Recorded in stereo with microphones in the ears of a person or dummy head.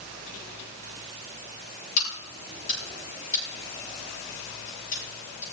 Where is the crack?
45° left (ahead or behind), 10 m.